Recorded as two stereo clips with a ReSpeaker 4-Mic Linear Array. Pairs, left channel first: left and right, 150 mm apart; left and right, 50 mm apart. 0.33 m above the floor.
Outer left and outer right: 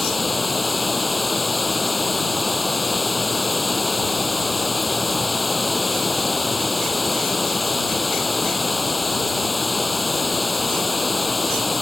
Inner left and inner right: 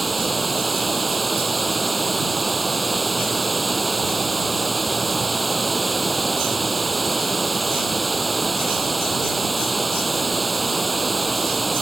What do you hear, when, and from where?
0.0 s running water: centre (ahead or behind)